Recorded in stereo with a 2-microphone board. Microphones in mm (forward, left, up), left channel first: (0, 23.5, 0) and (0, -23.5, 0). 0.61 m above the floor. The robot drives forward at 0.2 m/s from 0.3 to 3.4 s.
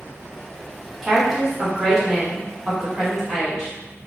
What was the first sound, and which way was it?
A woman speaking, 5° right (ahead or behind).